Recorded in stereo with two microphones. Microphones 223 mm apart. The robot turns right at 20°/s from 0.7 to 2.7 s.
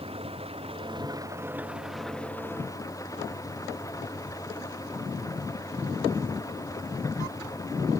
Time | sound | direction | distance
0.0 | an engine running | 25° right | ?